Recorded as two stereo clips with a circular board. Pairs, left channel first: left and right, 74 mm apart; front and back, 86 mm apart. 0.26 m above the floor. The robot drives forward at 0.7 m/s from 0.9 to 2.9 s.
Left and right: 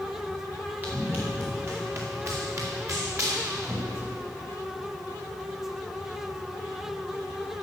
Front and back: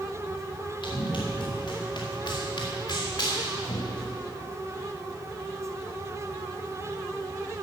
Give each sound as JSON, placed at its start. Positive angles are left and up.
{"t": 0.8, "sound": "running footsteps", "azimuth_deg": -25, "distance_m": 2.5}